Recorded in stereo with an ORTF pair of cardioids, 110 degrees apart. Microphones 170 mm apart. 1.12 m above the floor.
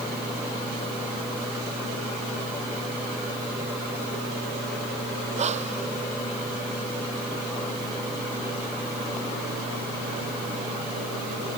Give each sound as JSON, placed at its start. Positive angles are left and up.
{"t": 5.4, "sound": "breathing", "azimuth_deg": -40}